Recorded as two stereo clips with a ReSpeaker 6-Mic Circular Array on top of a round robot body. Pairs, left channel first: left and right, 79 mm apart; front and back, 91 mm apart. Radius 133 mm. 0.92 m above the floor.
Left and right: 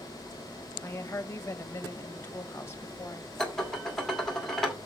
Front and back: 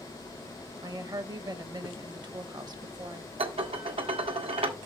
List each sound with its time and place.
0.8 s a woman speaking: 145° left, 1.2 m
3.4 s dishes clattering: 175° left, 1.6 m